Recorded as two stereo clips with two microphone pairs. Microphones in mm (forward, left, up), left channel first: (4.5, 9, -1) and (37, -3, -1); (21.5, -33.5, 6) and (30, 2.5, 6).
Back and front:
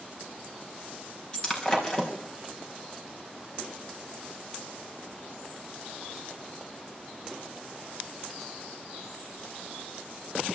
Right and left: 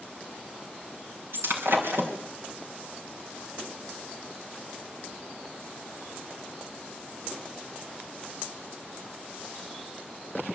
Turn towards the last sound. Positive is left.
turn(degrees=90)